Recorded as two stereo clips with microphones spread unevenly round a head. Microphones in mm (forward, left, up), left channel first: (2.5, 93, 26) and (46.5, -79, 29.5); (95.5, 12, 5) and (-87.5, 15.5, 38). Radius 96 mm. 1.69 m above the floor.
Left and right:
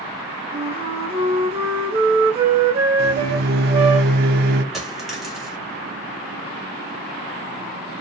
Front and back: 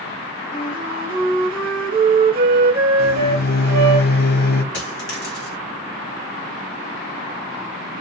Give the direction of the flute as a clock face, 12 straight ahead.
4 o'clock.